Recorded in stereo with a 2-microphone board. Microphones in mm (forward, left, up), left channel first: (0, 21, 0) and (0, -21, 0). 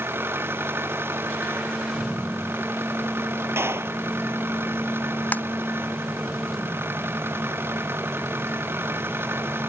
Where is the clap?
80° right.